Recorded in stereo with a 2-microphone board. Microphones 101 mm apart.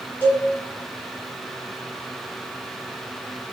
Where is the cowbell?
15° left (ahead or behind), 1.2 m.